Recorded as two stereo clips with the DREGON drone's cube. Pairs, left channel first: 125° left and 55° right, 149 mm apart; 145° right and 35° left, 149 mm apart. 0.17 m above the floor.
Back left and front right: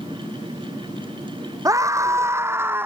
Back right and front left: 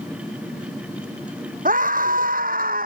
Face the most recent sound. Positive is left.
turn(degrees=20)